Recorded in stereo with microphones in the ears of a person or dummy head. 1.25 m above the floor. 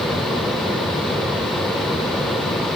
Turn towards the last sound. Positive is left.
No sound to turn to.